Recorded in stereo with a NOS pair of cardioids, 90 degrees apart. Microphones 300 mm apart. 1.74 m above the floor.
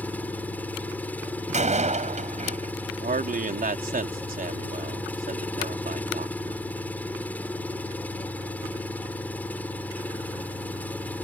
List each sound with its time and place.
0.0 s an engine running: 5° left
1.5 s a door slam: 25° right
3.0 s a man speaking: 30° right